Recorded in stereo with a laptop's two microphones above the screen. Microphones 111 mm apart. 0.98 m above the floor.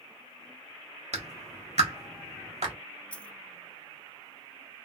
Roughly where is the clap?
Right.